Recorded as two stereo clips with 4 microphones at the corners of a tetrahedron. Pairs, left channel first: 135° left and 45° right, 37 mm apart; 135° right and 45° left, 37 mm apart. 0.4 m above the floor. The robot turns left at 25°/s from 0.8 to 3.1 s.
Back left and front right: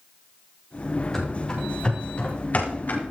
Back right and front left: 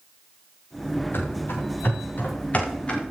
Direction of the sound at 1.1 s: 145° right.